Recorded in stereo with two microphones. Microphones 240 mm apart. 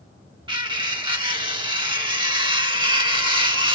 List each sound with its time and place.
0.5 s cutlery clinking: 20° right (ahead or behind), 0.6 m